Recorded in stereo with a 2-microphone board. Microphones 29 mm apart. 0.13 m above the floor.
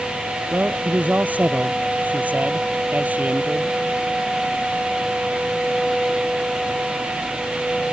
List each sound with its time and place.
0.5 s a man speaking: 65° right (ahead or behind)